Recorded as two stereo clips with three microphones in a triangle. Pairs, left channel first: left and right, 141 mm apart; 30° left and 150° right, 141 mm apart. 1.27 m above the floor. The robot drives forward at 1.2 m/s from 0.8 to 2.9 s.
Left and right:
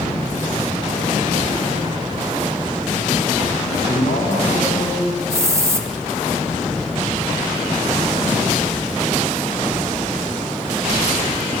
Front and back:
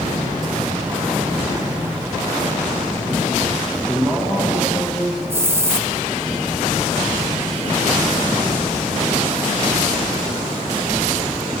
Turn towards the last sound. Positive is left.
turn(degrees=-110)